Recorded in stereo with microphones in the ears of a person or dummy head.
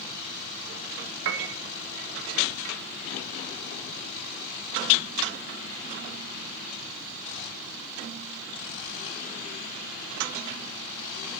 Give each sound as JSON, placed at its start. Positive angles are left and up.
{"t": 1.2, "sound": "a piano", "side_deg": -65, "distance_m": 1.0}